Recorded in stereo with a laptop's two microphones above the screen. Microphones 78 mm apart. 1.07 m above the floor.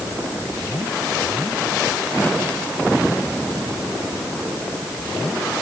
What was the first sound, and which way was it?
Only background noise.